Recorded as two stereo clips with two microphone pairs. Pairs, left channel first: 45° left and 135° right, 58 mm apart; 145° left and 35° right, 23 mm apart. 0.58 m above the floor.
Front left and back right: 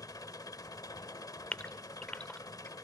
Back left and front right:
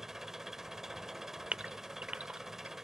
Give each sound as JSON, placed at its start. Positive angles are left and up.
{"t": 0.0, "sound": "an engine running", "azimuth_deg": 35, "distance_m": 1.1}
{"t": 1.5, "sound": "a gasp", "azimuth_deg": -30, "distance_m": 0.9}